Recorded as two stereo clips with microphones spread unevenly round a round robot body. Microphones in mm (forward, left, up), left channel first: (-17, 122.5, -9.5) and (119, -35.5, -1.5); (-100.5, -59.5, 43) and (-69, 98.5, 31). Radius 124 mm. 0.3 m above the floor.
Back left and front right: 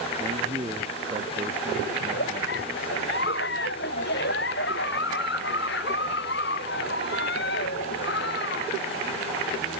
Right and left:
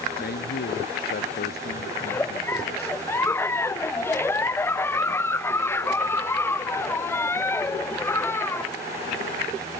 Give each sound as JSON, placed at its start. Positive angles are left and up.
{"t": 0.2, "sound": "a man speaking", "azimuth_deg": -120}
{"t": 2.0, "sound": "a giggle", "azimuth_deg": -175}